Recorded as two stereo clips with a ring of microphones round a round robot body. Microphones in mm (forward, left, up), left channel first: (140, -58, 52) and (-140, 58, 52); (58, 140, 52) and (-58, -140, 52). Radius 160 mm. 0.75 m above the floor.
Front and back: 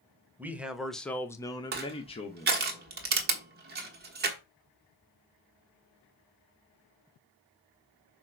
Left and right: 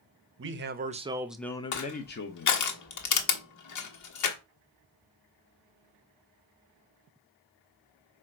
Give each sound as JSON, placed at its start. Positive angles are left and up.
{"t": 0.4, "sound": "a man speaking", "azimuth_deg": -120, "distance_m": 1.0}
{"t": 1.7, "sound": "crushing", "azimuth_deg": 100, "distance_m": 1.3}